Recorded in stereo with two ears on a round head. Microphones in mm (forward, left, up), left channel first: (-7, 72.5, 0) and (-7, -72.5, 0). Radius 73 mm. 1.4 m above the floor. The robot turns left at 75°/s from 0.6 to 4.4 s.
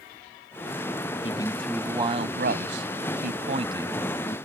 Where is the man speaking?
35° left; by 4.4 s 160° left.